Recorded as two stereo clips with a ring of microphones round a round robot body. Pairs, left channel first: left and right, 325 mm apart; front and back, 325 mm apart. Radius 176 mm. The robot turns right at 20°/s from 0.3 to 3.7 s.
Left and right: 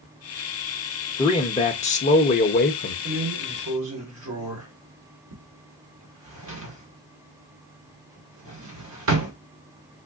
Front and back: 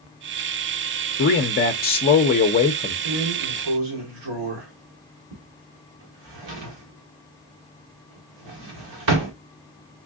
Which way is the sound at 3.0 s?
155° right.